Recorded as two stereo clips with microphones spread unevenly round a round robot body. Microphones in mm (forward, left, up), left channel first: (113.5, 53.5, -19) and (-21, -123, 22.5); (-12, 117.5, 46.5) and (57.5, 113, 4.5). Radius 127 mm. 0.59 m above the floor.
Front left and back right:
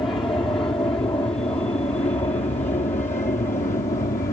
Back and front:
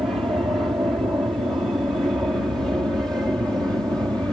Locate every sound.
0.0 s an aircraft: 15° right; by 4.3 s 30° left